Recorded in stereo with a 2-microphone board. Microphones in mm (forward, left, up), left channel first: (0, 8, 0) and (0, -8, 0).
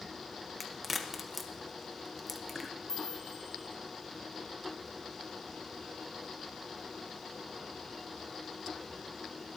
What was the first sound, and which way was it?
A crack, 5° right (ahead or behind).